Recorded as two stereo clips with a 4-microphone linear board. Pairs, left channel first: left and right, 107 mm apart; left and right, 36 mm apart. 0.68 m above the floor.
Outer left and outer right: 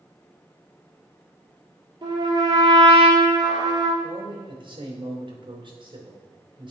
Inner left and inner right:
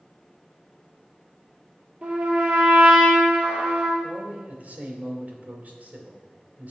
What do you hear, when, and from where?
2.0 s a trumpet: 35° right (ahead or behind), 2.5 m
4.0 s a man speaking: 50° right (ahead or behind), 2 m